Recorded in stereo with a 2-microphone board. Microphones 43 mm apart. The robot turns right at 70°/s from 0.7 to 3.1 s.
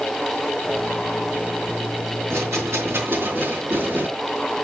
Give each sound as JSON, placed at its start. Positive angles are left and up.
{"t": 2.3, "sound": "a rattle", "azimuth_deg": -115, "distance_m": 5.0}